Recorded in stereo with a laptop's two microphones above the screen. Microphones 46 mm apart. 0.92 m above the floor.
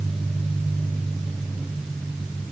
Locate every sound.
Only background noise.